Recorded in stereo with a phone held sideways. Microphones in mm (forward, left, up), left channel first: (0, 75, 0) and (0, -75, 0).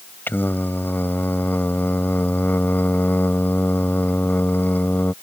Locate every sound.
0.3 s singing: 15° left (ahead or behind)